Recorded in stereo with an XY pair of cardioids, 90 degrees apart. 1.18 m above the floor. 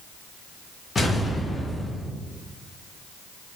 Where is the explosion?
30° left, 0.8 m.